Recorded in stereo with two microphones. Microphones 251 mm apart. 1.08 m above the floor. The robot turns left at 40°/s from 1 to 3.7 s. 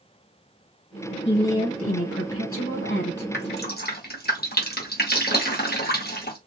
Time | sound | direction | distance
1.2 | a woman speaking | 125° left | 1.3 m
3.3 | dripping | 45° left (ahead or behind) | 0.9 m